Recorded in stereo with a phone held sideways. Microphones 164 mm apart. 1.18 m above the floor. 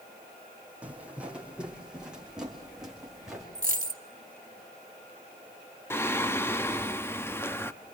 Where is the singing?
15° left (ahead or behind), 1.1 m.